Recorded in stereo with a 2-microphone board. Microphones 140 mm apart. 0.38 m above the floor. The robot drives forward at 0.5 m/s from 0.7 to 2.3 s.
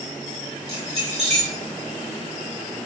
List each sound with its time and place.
0.7 s keys jangling: 45° right (ahead or behind), 1.4 m; by 1.5 s 50° right (ahead or behind), 1.3 m